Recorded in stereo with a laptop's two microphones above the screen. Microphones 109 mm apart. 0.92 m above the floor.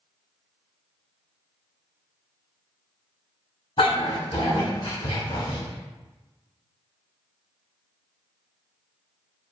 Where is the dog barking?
65° left (ahead or behind), 1.6 m.